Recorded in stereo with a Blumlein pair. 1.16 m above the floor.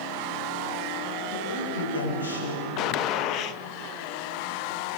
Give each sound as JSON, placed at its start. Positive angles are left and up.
{"t": 1.3, "sound": "a woman speaking", "azimuth_deg": 60, "distance_m": 7.5}
{"t": 2.8, "sound": "a gunshot", "azimuth_deg": 40, "distance_m": 0.6}